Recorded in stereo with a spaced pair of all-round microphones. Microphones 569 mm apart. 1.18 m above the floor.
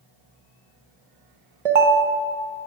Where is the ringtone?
75° right (ahead or behind), 0.7 m.